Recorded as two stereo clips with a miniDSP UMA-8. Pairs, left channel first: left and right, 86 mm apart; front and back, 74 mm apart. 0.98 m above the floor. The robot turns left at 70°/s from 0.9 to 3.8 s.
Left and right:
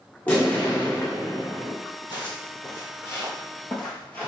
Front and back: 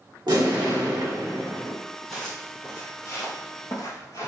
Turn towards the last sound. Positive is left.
turn(degrees=25)